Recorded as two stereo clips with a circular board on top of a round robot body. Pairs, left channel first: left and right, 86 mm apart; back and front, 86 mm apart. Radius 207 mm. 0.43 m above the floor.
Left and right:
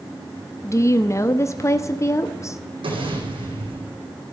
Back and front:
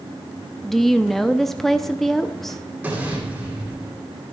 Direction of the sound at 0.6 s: 95° left.